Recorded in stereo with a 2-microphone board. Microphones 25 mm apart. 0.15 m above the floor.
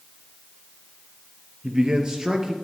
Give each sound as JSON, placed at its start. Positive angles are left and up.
{"t": 1.6, "sound": "a man speaking", "side_deg": -30, "distance_m": 2.5}